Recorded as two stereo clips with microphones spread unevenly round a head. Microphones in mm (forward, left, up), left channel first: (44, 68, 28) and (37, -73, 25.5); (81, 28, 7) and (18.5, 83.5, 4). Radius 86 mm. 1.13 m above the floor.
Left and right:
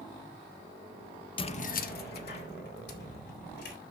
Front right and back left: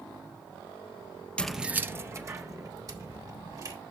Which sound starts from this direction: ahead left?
Keys jangling, at 1.4 s.